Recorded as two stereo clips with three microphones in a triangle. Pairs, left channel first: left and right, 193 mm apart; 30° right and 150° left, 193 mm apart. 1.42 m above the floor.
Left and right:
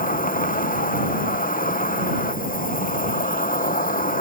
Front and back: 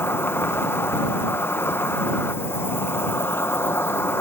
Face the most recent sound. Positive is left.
turn(degrees=45)